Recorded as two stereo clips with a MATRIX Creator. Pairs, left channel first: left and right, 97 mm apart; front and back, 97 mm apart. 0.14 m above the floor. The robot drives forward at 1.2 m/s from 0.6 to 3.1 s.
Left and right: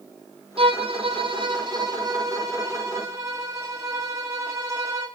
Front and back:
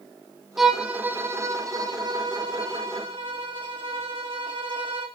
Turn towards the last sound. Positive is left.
turn(degrees=-150)